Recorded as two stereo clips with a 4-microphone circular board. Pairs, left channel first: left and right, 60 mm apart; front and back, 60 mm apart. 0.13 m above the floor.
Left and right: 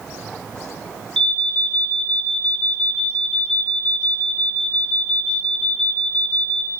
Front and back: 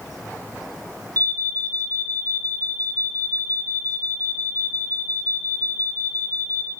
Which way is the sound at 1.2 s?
165° left.